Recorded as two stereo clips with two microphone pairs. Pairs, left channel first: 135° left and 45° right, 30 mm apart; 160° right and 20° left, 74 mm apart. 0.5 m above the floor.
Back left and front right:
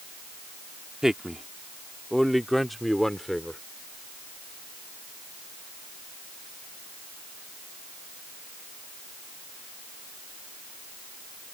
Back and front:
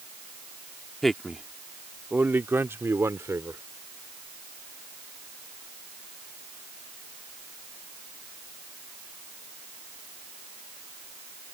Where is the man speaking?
75° right; by 3.6 s 50° left.